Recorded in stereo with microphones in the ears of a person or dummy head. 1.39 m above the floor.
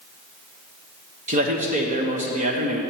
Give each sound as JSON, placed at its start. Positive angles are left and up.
{"t": 1.3, "sound": "a man speaking", "side_deg": -45, "distance_m": 1.1}